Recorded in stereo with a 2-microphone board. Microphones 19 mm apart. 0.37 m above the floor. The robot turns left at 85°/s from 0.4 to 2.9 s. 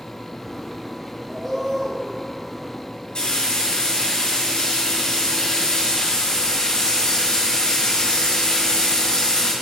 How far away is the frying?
About 2.5 m.